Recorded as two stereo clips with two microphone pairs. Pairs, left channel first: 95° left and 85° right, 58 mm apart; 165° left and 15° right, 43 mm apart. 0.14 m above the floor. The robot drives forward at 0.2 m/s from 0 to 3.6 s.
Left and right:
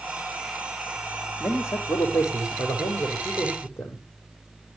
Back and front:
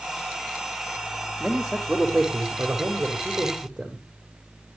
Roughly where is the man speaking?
Ahead left.